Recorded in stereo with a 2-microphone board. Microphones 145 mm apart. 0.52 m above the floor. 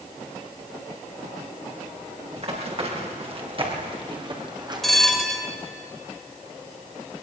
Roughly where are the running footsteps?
Right.